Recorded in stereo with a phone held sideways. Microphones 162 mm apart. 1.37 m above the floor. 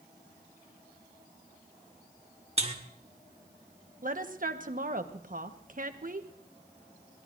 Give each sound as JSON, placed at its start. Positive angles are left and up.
{"t": 2.6, "sound": "a buzzer", "side_deg": -40, "distance_m": 1.5}
{"t": 4.0, "sound": "a woman speaking", "side_deg": -55, "distance_m": 1.2}